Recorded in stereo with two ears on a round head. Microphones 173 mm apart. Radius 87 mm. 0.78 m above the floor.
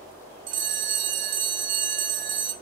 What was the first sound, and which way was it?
A bell, 45° right (ahead or behind).